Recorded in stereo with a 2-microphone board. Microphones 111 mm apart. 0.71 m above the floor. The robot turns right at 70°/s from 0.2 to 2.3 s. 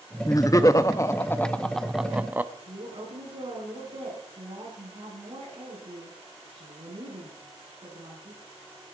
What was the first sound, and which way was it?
Laughter, 65° left.